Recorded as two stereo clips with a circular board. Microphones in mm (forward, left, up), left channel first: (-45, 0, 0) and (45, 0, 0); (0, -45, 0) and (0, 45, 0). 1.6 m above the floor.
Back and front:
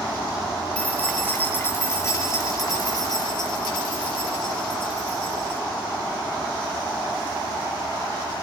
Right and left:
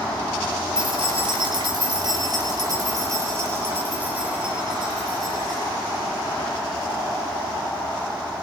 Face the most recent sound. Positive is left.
turn(degrees=-175)